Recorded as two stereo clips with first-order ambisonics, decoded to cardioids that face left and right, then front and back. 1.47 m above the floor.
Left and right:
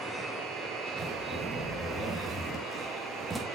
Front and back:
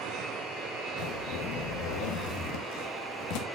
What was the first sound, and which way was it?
A zipper, 5° right.